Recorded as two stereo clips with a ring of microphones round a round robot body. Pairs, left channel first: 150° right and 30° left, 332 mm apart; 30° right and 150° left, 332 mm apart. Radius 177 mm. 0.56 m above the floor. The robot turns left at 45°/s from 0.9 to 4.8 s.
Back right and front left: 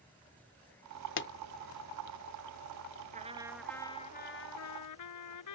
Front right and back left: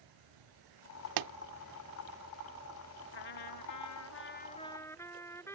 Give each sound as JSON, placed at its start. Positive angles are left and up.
{"t": 0.0, "sound": "an insect", "azimuth_deg": 125}
{"t": 1.2, "sound": "a pop", "azimuth_deg": 160}
{"t": 3.1, "sound": "a trumpet", "azimuth_deg": -40}